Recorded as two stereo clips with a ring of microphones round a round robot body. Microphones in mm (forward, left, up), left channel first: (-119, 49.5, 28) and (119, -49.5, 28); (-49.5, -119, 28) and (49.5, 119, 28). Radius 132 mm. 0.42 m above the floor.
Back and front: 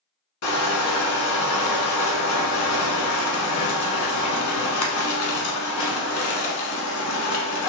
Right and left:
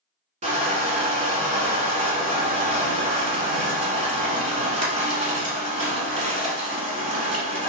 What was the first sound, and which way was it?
Crushing, 135° left.